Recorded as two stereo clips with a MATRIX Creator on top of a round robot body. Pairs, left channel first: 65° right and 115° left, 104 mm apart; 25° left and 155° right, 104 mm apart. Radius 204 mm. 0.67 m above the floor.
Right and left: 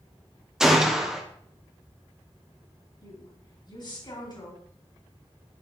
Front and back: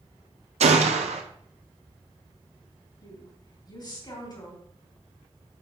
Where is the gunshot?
160° right, 0.7 m.